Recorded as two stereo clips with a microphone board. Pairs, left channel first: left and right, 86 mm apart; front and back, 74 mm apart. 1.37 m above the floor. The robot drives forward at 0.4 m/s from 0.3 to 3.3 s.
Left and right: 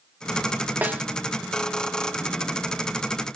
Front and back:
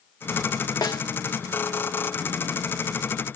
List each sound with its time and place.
0.8 s a snare drum: 20° right, 1.7 m